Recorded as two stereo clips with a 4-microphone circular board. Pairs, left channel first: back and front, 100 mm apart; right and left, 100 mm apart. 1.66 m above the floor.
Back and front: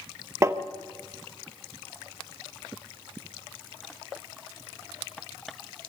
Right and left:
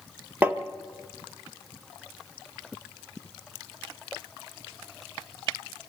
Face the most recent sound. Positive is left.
turn(degrees=35)